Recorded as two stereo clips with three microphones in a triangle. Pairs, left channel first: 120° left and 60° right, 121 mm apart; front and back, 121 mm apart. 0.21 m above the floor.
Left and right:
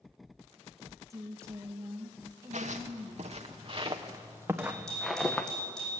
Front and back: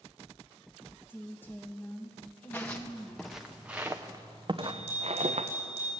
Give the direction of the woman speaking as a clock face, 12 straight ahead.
2 o'clock.